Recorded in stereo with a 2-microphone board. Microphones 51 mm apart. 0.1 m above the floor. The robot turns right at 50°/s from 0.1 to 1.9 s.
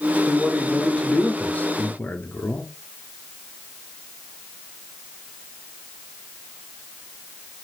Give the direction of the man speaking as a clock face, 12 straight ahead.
12 o'clock.